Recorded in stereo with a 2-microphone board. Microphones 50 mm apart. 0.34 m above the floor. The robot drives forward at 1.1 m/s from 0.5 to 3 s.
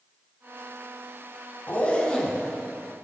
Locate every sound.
1.7 s a zipper: 35° left (ahead or behind), 0.6 m; by 2.6 s 15° left (ahead or behind), 1.5 m